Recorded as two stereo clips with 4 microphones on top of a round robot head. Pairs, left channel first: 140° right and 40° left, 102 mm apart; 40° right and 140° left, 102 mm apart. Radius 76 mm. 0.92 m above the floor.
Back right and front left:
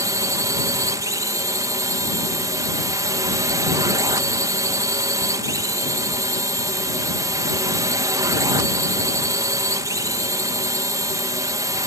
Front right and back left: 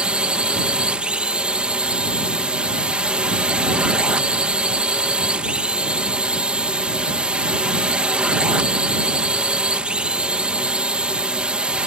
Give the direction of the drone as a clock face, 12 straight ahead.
10 o'clock.